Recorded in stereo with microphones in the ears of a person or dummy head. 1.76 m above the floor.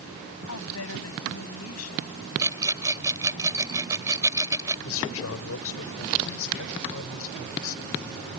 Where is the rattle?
20° right (ahead or behind).